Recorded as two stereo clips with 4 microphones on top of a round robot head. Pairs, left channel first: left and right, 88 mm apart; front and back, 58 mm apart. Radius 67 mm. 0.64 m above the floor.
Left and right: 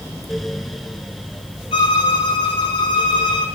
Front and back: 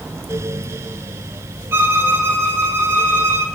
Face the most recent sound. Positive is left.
turn(degrees=135)